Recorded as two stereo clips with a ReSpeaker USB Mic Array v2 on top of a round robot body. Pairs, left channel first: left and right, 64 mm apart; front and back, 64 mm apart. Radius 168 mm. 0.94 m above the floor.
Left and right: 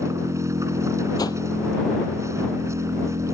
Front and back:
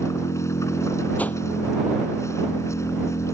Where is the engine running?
45° right.